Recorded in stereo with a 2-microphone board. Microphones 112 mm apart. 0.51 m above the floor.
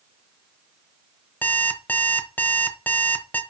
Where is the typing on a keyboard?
I don't hear typing on a keyboard.